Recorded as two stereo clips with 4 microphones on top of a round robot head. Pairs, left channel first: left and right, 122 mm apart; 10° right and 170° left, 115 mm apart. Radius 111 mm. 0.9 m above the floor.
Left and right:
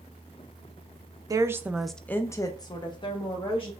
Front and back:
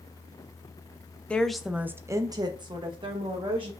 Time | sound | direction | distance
1.3 | a woman speaking | 80° right | 0.6 m